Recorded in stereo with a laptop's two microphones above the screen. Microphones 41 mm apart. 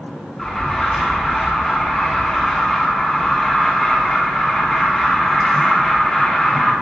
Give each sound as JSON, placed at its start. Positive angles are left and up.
{"t": 0.4, "sound": "an alarm", "side_deg": 5, "distance_m": 1.9}